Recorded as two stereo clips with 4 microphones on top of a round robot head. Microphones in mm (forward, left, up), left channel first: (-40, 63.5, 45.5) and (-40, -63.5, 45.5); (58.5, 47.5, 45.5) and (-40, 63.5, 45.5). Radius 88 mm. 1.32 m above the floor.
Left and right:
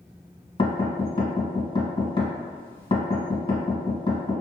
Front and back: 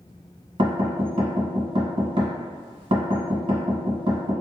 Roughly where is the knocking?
Behind left.